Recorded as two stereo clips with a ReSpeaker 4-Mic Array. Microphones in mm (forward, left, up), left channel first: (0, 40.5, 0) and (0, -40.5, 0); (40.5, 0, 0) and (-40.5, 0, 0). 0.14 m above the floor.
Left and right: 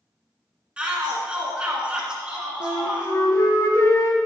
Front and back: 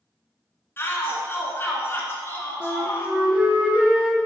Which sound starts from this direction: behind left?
A flute, at 2.6 s.